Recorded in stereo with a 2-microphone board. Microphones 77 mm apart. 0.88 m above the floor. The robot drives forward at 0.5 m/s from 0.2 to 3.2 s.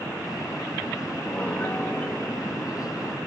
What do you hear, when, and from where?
1.3 s a piano: 15° left (ahead or behind), 1.4 m; by 3.2 s 25° left (ahead or behind), 0.8 m